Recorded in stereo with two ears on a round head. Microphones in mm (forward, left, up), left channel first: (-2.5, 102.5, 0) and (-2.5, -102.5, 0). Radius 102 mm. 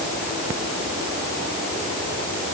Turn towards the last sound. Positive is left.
No sound to turn to.